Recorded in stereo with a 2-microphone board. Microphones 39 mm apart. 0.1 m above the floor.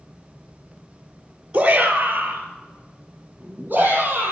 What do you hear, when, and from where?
1.5 s a shout: 25° right (ahead or behind), 1.3 m; by 4.3 s 40° right (ahead or behind), 3 m